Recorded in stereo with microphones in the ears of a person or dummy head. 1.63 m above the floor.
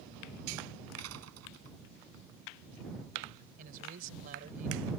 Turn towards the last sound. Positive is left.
turn(degrees=-50)  # may be behind; listen again after turning